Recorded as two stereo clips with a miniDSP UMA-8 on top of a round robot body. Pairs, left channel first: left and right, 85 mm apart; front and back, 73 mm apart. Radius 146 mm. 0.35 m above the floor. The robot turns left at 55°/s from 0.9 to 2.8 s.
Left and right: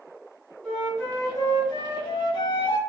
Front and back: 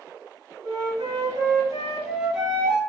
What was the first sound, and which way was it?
A flute, 170° left.